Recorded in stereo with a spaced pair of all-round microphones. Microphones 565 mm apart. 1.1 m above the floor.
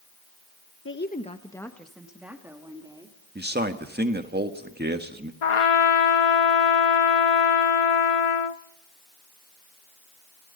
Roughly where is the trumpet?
Left.